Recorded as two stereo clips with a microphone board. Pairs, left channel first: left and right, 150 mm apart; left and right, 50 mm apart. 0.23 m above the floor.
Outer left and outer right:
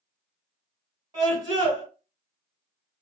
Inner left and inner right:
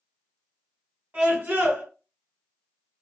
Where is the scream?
35° right (ahead or behind), 1.5 m.